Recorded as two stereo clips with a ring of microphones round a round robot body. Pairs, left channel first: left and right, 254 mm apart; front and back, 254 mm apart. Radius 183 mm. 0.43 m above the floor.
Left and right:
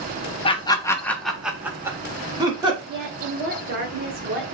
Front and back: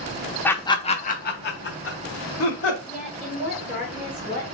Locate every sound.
0.5 s laughter: 70° left, 0.8 m; by 2.8 s 20° right, 1.6 m
2.9 s a woman speaking: 75° right, 1.1 m